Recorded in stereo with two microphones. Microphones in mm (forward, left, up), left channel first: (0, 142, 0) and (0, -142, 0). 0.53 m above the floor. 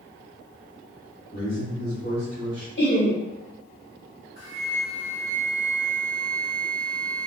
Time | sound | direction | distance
1.3 | a man speaking | 40° left (ahead or behind) | 1.6 m
2.8 | laughter | 40° left (ahead or behind) | 1.3 m
4.4 | a flute | 70° left (ahead or behind) | 0.8 m